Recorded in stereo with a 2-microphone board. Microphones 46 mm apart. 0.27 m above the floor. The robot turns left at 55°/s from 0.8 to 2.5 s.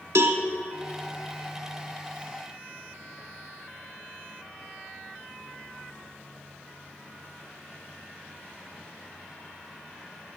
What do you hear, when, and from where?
0.1 s a cowbell: 75° right (ahead or behind), 0.6 m